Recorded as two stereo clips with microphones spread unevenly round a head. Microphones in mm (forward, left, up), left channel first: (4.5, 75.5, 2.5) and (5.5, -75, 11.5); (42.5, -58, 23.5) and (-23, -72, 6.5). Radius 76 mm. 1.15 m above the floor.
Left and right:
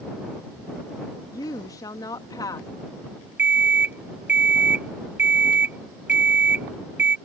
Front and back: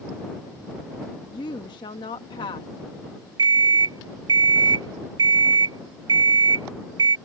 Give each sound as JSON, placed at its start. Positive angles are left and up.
{"t": 1.3, "sound": "a woman speaking", "azimuth_deg": 25}
{"t": 3.4, "sound": "an alarm clock", "azimuth_deg": -165}